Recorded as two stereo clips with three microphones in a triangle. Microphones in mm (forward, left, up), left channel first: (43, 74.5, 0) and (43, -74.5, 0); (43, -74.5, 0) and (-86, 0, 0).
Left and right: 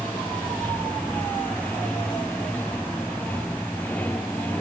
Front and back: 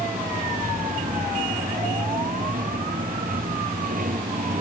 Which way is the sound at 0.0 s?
170° left.